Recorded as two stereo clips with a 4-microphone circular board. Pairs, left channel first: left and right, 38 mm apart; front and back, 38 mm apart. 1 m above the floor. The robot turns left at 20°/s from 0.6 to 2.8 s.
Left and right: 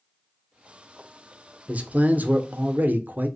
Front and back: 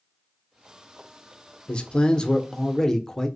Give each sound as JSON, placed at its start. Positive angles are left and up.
{"t": 1.7, "sound": "a man speaking", "azimuth_deg": -50, "distance_m": 0.5}